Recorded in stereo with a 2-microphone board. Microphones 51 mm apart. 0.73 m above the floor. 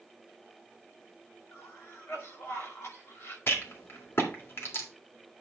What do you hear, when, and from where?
1.5 s a cough: 60° left (ahead or behind), 2.5 m
3.5 s a rattle: 50° left (ahead or behind), 1.9 m